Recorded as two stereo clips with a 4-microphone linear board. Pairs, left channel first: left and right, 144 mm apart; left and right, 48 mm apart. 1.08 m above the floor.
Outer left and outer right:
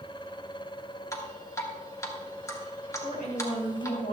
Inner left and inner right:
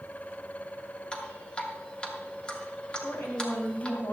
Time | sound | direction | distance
1.1 | dripping | 25° left (ahead or behind) | 1.4 m
3.0 | a woman speaking | 85° left | 4.5 m